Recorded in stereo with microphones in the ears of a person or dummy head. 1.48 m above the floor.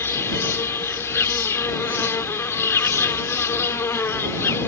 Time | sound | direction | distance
0.0 | an insect | 15° left (ahead or behind) | ?